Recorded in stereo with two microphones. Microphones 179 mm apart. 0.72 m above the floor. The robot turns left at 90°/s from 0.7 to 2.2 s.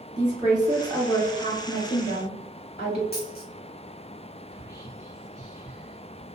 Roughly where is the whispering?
Centre.